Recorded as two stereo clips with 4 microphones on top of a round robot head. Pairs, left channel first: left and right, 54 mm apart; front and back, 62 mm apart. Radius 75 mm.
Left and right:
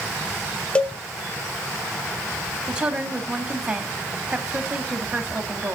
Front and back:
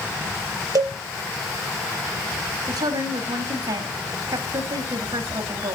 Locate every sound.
0.8 s a cowbell: 160° left, 0.8 m
2.7 s a woman speaking: 165° right, 2 m